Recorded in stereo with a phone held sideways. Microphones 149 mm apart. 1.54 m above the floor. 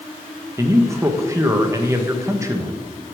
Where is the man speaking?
20° right (ahead or behind), 1.4 m.